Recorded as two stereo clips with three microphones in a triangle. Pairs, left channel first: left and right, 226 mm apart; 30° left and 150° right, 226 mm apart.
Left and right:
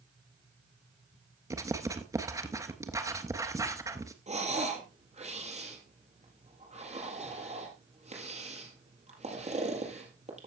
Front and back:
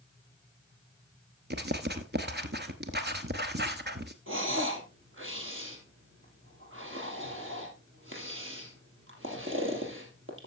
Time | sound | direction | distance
1.5 | writing | 160° right | 1.1 m
4.3 | breathing | 145° right | 3.5 m